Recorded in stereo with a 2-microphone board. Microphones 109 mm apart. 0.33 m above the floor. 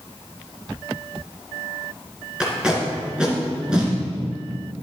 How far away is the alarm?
No alarm in this recording.